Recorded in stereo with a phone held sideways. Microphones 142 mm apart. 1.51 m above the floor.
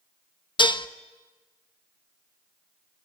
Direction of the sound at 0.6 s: 35° left (ahead or behind).